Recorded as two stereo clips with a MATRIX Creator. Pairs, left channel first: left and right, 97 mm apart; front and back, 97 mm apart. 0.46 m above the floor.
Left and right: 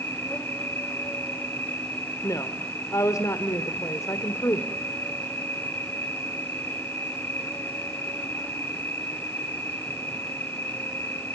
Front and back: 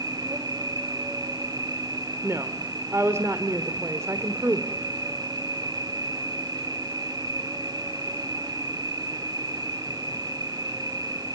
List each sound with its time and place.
0.0 s an insect: 150° left, 3 m
2.2 s a woman speaking: 130° left, 1.5 m